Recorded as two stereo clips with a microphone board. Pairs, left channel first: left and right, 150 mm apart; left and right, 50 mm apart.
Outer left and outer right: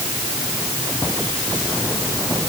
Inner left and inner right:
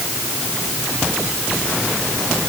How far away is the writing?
I don't hear writing.